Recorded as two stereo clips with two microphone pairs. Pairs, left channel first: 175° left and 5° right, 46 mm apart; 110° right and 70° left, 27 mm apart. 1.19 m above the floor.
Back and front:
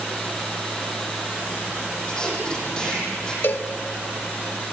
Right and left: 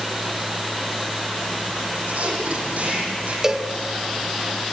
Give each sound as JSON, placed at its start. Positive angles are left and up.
{"t": 2.1, "sound": "tape being pulled", "azimuth_deg": 105, "distance_m": 8.5}
{"t": 3.4, "sound": "a cowbell", "azimuth_deg": 140, "distance_m": 1.1}